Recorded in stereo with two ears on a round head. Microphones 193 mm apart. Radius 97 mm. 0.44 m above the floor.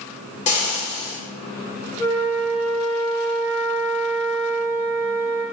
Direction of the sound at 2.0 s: 35° left (ahead or behind).